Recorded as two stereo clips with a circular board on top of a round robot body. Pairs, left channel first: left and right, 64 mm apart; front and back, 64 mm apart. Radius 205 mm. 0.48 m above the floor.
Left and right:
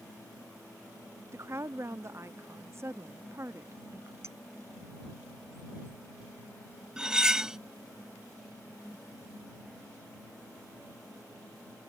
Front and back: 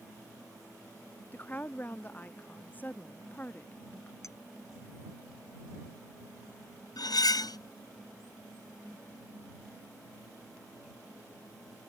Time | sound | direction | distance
1.3 | a woman speaking | 55° right | ?
4.2 | a clink | 40° right | ?
7.0 | cutlery clinking | 10° right | ?